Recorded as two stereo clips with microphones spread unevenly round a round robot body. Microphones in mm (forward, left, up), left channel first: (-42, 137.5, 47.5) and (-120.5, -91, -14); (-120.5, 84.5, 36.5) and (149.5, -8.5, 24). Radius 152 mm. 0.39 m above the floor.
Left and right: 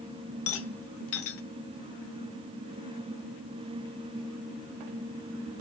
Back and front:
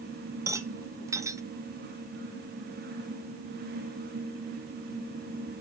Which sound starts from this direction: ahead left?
A rattle, at 0.5 s.